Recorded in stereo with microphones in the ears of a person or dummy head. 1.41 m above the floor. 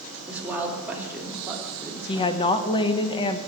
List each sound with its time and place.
0.3 s a woman speaking: 10° right (ahead or behind), 2.5 m; by 2.4 s 15° right (ahead or behind), 3.5 m
2.1 s a woman speaking: 30° left (ahead or behind), 0.9 m